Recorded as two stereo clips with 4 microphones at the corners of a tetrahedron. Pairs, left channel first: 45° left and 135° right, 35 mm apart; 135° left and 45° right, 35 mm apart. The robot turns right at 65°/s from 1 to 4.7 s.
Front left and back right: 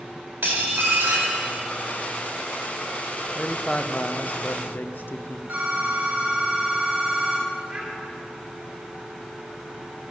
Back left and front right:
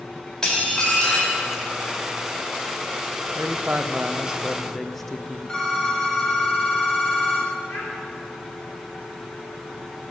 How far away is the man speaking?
About 0.8 m.